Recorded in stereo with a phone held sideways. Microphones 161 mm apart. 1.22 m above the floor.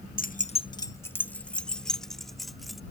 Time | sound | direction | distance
0.2 | keys jangling | 55° left (ahead or behind) | ?